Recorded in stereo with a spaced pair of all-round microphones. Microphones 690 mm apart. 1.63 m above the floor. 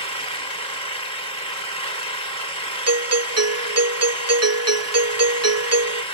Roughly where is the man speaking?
I don't hear a man speaking.